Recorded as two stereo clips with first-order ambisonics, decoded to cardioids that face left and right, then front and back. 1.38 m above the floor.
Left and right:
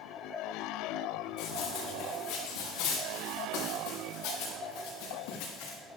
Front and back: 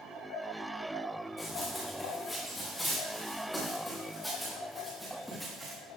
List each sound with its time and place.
1.4 s running footsteps: 75° left, 5 m; by 5.8 s 95° left, 9 m